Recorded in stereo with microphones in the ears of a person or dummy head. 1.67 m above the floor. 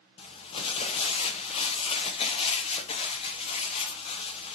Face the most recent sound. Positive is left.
turn(degrees=30)  # may be behind; listen again after turning